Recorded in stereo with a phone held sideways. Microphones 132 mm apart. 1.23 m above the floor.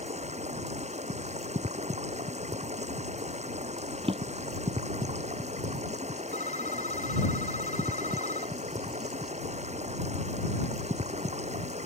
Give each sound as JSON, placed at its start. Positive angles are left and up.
{"t": 0.0, "sound": "running water", "side_deg": -55}
{"t": 4.0, "sound": "a drawer", "side_deg": -45}
{"t": 6.3, "sound": "a phone ringing", "side_deg": 70}